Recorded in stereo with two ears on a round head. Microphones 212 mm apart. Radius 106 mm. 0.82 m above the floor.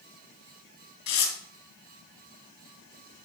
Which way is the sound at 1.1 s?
80° left.